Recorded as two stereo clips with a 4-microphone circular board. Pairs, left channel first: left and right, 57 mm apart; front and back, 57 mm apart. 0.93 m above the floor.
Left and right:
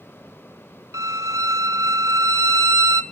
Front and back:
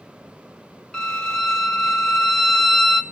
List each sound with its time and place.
0.9 s a violin: 80° right, 1.5 m